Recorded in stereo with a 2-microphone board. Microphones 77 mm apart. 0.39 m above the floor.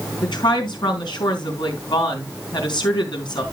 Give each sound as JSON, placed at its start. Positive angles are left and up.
{"t": 0.2, "sound": "a woman speaking", "side_deg": 75, "distance_m": 4.0}